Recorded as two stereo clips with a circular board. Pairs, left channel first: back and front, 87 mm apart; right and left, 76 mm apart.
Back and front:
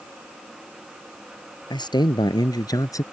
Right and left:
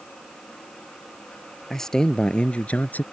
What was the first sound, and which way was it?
A man speaking, 175° right.